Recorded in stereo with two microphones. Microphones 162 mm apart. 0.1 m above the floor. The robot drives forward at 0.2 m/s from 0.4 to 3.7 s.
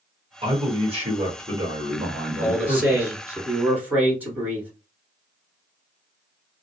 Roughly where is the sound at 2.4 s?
Centre.